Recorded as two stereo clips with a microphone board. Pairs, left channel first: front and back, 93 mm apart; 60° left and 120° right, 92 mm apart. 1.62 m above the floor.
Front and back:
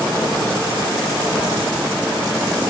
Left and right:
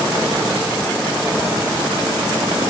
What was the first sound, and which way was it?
Only background noise.